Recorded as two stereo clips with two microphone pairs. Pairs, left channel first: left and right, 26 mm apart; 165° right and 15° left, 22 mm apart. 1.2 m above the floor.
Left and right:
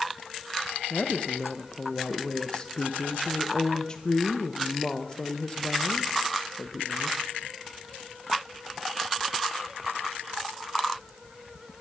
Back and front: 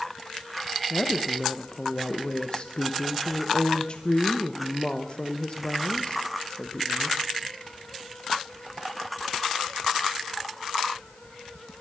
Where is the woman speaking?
155° left, 0.9 m.